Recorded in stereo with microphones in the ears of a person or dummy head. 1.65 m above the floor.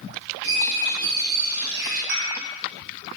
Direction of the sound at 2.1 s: 65° right (ahead or behind).